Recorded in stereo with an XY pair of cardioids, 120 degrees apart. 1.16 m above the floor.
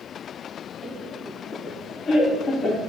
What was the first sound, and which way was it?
Laughter, 40° left.